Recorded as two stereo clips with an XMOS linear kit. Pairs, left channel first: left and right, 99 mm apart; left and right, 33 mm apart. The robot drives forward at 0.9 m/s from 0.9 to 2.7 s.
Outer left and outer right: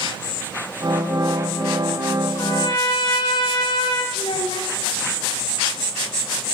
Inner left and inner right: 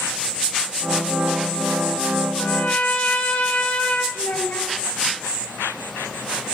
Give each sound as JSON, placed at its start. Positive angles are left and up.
{"t": 2.4, "sound": "a trumpet", "side_deg": 45, "distance_m": 2.0}
{"t": 4.2, "sound": "a child speaking", "side_deg": 75, "distance_m": 2.0}